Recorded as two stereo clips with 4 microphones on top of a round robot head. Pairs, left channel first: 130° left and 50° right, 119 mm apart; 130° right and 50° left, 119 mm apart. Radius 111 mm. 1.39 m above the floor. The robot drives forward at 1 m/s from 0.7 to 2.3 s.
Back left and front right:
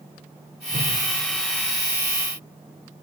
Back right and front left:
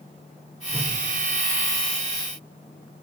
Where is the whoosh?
30° right, 4.5 m.